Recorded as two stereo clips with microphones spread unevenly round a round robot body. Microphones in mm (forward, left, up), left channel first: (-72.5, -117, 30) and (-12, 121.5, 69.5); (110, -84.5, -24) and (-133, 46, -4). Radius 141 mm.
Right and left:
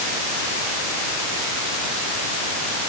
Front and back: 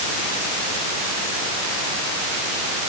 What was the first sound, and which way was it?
Only background noise.